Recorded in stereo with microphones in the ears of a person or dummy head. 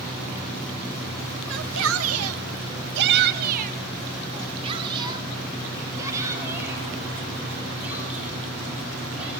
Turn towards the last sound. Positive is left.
turn(degrees=-5)  # may be behind; listen again after turning